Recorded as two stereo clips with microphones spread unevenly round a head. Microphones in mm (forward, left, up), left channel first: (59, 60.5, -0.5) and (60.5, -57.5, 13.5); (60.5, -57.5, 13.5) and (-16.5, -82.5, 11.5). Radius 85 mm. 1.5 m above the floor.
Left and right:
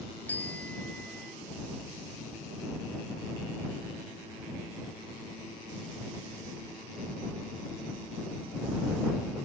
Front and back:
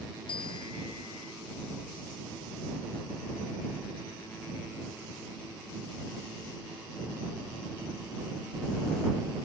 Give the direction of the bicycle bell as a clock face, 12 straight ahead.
12 o'clock.